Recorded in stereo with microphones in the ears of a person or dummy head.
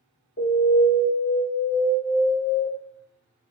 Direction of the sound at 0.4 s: 45° left (ahead or behind).